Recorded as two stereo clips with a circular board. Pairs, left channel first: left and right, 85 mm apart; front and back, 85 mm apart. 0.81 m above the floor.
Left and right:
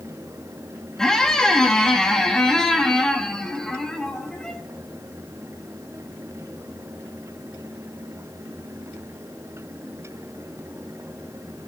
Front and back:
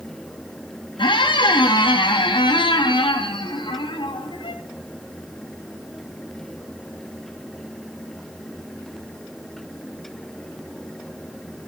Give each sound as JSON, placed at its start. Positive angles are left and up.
{"t": 1.0, "sound": "a squeak", "azimuth_deg": 10, "distance_m": 0.6}